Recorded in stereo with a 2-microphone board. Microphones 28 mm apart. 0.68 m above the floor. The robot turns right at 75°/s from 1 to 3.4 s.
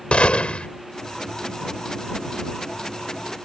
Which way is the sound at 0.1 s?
40° left (ahead or behind).